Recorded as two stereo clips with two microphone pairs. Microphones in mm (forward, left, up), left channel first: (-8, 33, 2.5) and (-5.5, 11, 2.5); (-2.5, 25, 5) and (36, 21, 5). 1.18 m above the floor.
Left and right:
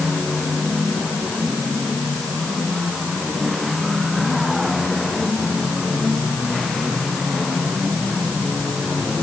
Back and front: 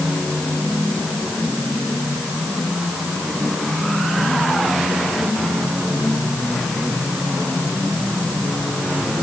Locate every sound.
Only background noise.